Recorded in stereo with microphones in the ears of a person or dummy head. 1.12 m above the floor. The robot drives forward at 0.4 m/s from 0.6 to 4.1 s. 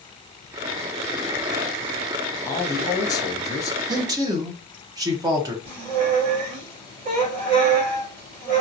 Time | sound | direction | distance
2.5 | a man speaking | 15° left (ahead or behind) | 0.6 m
3.9 | a man speaking | 20° right (ahead or behind) | 0.7 m
5.7 | a squeak | 40° right (ahead or behind) | 1.8 m